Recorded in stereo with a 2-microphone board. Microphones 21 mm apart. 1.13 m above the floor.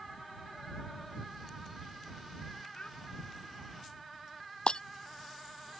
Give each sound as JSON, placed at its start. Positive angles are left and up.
{"t": 2.7, "sound": "a child speaking", "side_deg": 85}
{"t": 4.7, "sound": "breaking glass", "side_deg": 55}